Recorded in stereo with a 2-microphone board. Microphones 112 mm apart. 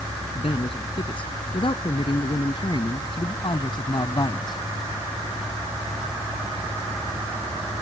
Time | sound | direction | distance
0.3 | a man speaking | 50° left (ahead or behind) | ?